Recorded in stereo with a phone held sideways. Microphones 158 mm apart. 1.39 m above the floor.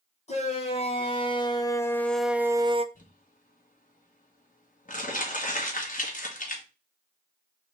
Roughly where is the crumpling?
Left.